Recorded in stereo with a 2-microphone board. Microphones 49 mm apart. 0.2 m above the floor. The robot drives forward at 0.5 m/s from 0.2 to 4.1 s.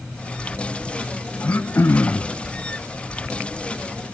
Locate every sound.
1.4 s throat clearing: 45° left (ahead or behind), 0.6 m; by 2.3 s 50° left (ahead or behind), 0.5 m